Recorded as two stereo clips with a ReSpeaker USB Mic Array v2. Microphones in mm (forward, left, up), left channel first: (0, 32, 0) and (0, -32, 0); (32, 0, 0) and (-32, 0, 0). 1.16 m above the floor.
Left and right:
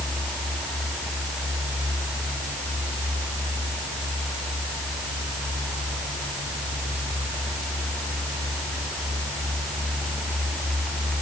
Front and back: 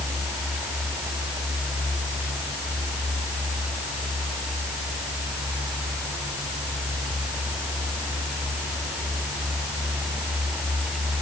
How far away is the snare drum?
No snare drum in this recording.